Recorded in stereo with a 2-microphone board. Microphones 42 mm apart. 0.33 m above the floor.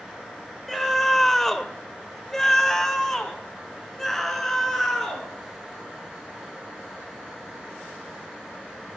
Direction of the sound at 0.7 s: 5° left (ahead or behind).